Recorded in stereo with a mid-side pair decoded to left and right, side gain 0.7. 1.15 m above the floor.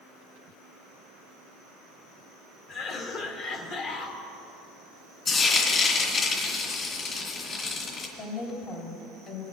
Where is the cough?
55° left, 1.8 m.